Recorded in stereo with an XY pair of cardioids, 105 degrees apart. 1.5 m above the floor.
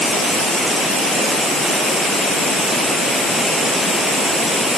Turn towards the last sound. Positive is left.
No sound to turn to.